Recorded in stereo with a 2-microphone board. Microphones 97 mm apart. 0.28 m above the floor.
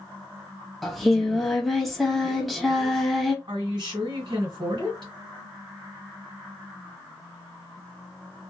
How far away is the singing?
About 0.7 m.